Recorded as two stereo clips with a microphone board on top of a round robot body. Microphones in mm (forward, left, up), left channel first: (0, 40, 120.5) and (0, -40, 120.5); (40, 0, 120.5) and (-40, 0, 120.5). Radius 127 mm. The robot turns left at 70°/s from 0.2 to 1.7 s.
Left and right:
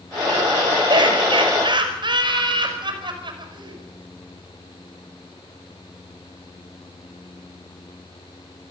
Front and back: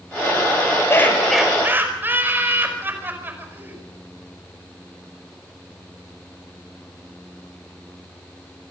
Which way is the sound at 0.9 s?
60° right.